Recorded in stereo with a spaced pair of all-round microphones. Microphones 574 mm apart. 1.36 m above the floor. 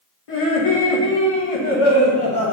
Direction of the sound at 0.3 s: 65° left (ahead or behind).